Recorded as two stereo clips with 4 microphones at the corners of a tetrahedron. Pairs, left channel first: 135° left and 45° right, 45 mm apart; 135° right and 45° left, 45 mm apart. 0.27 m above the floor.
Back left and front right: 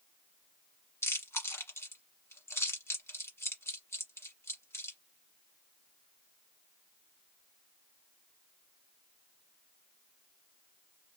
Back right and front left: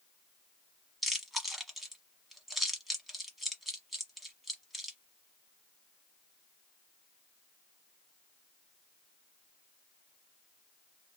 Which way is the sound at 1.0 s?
135° left.